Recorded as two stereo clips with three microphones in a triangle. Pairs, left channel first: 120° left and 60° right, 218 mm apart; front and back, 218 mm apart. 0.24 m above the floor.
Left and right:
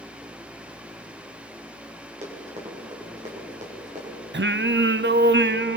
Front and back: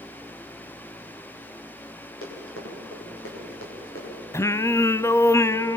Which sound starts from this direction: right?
Singing, at 4.3 s.